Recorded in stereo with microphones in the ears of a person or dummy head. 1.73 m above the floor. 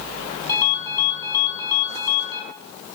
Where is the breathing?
I don't hear breathing.